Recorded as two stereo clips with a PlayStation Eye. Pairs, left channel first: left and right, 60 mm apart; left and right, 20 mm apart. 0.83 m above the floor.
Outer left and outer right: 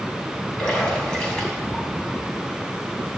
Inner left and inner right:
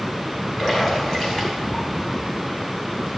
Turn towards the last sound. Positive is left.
turn(degrees=15)  # may be behind; listen again after turning